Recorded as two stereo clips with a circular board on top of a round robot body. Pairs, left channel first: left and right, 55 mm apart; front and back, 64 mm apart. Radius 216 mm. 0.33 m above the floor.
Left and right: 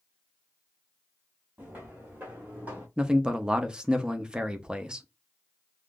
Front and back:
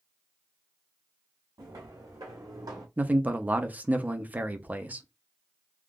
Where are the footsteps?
155° right, 2.0 m.